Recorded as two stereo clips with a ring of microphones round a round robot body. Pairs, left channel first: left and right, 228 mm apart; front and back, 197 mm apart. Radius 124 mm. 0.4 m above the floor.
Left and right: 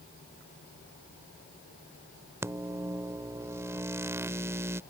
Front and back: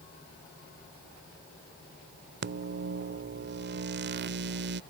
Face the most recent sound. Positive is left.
turn(degrees=-165)